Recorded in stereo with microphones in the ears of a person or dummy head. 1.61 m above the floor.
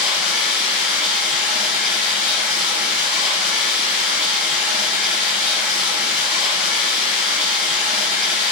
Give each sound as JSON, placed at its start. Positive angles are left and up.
{"t": 0.0, "sound": "running water", "side_deg": -20, "distance_m": 1.0}